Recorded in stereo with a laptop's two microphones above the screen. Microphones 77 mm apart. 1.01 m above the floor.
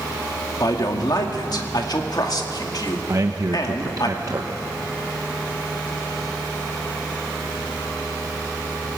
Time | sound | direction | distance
0.6 | a man speaking | 60° left (ahead or behind) | 1.8 m
3.1 | a man speaking | 50° right (ahead or behind) | 0.9 m